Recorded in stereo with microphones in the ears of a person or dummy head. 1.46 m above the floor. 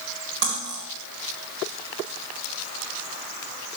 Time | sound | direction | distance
0.4 | cutlery clinking | 65° right (ahead or behind) | 3.5 m